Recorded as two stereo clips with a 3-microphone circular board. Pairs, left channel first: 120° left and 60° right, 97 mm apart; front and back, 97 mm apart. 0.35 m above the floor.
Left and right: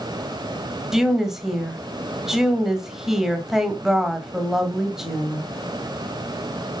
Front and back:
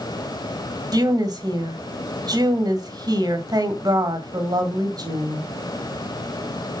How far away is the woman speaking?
About 1.7 m.